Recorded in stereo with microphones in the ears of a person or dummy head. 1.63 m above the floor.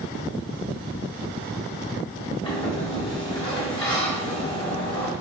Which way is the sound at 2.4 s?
30° left (ahead or behind).